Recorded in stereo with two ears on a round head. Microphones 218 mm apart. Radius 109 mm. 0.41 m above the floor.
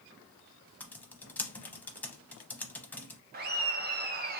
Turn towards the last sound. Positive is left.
turn(degrees=-40)  # may be behind; listen again after turning